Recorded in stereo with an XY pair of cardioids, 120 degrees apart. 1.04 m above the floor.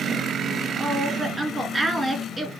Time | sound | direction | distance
0.8 | a woman speaking | 15° right | 1.9 m